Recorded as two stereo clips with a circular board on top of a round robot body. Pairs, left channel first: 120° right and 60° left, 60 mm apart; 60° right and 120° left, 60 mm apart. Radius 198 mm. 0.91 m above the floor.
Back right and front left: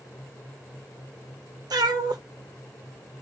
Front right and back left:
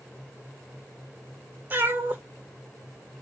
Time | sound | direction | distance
1.7 | a cat meowing | 60° left | 0.9 m